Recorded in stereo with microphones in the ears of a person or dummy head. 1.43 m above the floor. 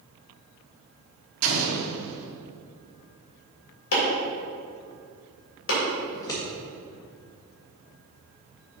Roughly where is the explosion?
Right.